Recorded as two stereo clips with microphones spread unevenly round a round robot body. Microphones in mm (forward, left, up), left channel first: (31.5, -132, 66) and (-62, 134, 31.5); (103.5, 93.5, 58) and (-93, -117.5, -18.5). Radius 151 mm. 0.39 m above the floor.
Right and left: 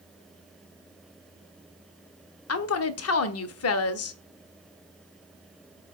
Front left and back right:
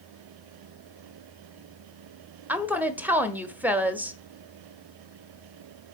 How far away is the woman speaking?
About 1.1 m.